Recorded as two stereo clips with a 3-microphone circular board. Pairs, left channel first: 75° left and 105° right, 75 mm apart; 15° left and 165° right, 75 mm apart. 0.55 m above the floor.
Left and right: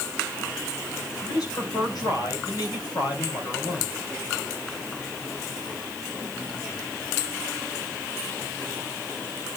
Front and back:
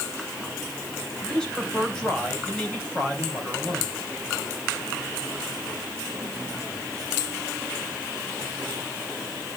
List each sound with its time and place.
1.2 s a man speaking: 95° left, 3 m